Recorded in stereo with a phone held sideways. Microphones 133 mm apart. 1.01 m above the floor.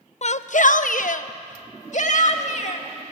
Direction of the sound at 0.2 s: 55° left (ahead or behind).